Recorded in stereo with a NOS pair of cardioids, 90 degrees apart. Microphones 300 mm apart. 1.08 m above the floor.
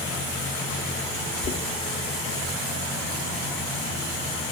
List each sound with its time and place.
1.4 s knocking: 40° left, 1.8 m